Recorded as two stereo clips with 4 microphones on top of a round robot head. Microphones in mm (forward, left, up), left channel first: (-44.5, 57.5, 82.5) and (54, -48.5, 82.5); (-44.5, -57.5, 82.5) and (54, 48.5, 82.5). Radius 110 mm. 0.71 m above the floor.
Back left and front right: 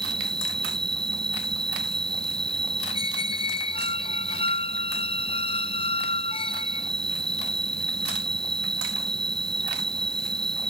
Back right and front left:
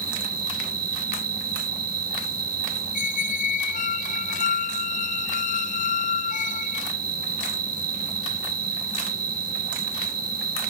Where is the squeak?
170° right.